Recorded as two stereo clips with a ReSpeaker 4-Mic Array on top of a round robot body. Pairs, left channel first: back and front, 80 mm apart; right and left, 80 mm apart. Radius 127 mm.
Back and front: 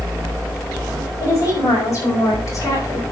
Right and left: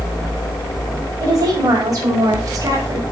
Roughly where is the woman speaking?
Behind left.